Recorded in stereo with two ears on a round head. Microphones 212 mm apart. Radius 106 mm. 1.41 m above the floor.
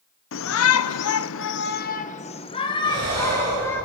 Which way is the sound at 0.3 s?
65° left (ahead or behind).